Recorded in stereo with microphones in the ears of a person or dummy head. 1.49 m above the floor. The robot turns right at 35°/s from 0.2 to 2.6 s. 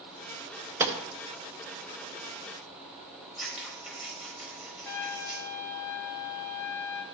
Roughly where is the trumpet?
Centre.